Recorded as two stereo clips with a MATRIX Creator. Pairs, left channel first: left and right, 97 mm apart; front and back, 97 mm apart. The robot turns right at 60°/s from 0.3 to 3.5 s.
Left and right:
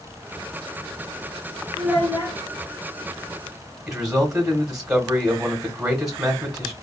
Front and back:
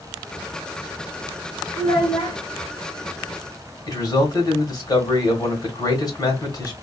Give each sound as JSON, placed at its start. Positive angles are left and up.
{"t": 1.8, "sound": "a child speaking", "azimuth_deg": -10, "distance_m": 1.0}
{"t": 3.9, "sound": "a man speaking", "azimuth_deg": -10, "distance_m": 1.2}